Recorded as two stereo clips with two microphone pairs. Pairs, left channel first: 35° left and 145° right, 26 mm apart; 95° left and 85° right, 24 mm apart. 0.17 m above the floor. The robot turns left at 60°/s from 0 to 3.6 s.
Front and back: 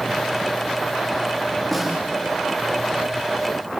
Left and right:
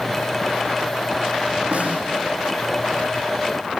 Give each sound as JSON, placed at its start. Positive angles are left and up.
{"t": 1.7, "sound": "a snare drum", "azimuth_deg": -50, "distance_m": 6.5}